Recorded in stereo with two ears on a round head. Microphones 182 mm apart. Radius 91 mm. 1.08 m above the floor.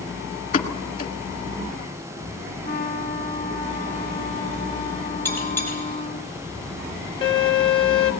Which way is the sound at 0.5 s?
40° left (ahead or behind).